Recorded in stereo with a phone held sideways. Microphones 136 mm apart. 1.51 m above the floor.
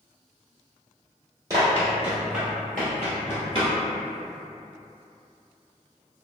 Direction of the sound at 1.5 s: 25° right (ahead or behind).